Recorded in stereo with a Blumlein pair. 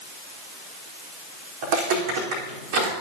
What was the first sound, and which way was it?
Footsteps, 50° right.